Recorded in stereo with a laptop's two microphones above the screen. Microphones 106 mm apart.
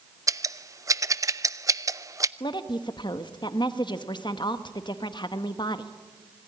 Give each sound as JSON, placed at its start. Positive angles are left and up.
{"t": 0.3, "sound": "scissors", "side_deg": -30, "distance_m": 0.5}
{"t": 2.4, "sound": "a woman speaking", "side_deg": 45, "distance_m": 1.0}